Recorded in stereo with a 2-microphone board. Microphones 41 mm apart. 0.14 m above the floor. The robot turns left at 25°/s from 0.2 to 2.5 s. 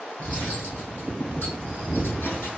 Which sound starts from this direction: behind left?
Cutlery clinking, at 0.2 s.